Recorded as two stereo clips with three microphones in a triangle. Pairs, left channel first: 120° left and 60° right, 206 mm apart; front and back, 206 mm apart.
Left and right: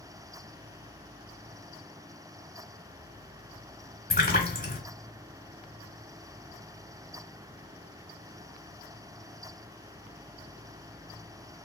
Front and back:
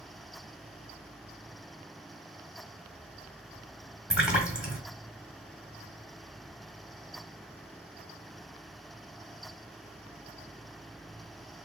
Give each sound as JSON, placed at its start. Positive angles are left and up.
{"t": 4.1, "sound": "a splash", "azimuth_deg": 95, "distance_m": 1.3}